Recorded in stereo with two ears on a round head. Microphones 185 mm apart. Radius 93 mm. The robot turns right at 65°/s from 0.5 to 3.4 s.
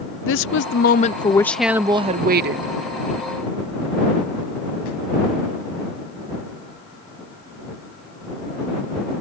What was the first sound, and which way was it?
A woman speaking, 110° left.